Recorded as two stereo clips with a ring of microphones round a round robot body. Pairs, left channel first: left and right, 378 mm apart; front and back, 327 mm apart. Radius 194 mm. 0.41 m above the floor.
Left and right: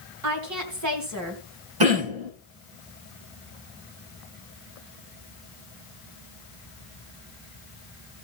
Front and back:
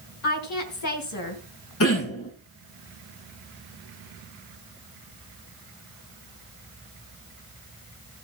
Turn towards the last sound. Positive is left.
turn(degrees=-55)